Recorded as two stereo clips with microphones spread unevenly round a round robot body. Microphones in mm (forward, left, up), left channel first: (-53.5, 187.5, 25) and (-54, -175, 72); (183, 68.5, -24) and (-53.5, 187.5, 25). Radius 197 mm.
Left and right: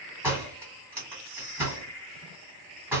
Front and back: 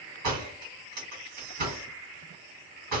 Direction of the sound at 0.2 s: Straight behind.